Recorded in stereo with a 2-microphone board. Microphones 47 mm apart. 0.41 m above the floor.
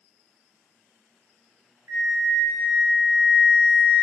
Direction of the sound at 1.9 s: 85° right.